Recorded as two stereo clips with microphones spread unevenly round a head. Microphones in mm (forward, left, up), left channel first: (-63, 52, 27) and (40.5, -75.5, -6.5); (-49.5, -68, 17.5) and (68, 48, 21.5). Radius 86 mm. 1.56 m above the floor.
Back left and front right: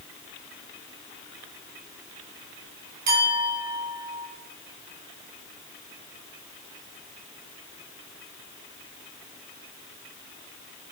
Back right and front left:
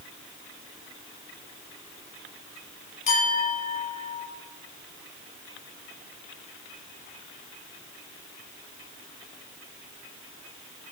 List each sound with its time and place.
3.1 s a clink: 90° right, 6 m